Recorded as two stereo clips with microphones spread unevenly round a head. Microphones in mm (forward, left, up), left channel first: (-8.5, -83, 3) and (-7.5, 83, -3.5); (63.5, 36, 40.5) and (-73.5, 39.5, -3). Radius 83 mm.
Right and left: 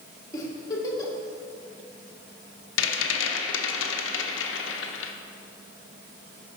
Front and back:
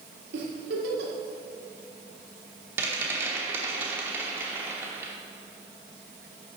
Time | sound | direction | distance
0.3 | a giggle | 160° right | 1.2 m
2.8 | a rattle | 100° right | 0.7 m